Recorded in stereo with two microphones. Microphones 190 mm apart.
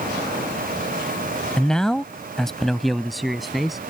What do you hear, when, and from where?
1.6 s a man speaking: 5° left (ahead or behind); by 3.8 s centre (ahead or behind)